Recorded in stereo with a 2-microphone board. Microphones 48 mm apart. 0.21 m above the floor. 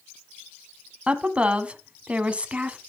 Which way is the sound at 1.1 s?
25° right (ahead or behind).